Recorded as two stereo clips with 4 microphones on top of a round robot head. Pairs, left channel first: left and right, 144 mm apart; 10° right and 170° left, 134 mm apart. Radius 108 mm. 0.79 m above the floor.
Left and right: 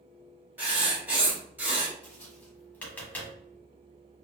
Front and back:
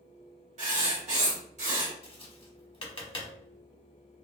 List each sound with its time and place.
0.6 s writing: 165° right, 1.8 m
2.0 s tapping: 15° left, 1.2 m